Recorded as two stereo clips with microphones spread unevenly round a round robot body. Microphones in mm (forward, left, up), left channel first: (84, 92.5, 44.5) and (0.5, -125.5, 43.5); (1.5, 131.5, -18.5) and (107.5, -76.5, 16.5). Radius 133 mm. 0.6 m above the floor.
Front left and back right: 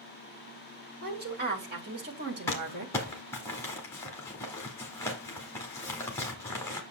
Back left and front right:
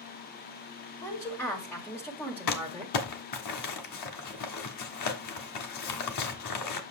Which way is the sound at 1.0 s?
165° right.